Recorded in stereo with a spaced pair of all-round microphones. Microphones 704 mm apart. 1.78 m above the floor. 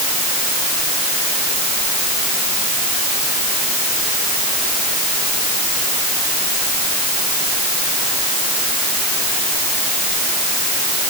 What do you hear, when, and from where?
Only background noise.